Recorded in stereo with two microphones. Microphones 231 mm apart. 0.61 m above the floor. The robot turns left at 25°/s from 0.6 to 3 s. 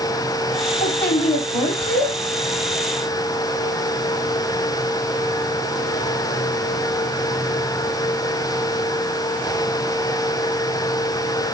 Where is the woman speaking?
50° left, 3.5 m; by 2.1 s 15° left, 3.5 m.